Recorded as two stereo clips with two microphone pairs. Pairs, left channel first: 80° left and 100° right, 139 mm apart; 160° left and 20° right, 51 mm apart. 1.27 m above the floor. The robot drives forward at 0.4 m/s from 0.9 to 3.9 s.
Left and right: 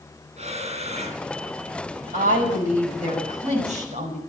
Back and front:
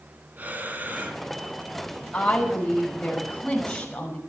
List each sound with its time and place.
0.4 s breathing: 70° right, 2.5 m; by 1.2 s 75° right, 2.5 m
2.1 s a woman speaking: 125° right, 5.5 m; by 4.2 s 130° right, 6 m